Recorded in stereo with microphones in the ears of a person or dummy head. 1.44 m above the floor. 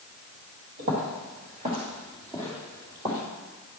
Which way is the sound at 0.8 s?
40° right (ahead or behind).